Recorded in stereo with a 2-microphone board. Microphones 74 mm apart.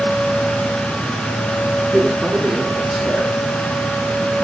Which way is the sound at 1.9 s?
5° right (ahead or behind).